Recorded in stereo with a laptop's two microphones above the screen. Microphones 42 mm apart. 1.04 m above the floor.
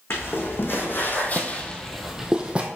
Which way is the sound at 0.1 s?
70° left (ahead or behind).